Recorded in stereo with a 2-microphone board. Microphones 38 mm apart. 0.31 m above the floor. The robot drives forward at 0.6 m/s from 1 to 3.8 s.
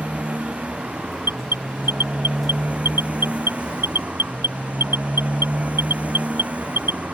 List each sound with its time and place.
0.0 s a motorcycle: 35° right (ahead or behind); by 7.2 s 40° right (ahead or behind)
1.2 s an alarm: 80° right; by 7.0 s 75° right (ahead or behind)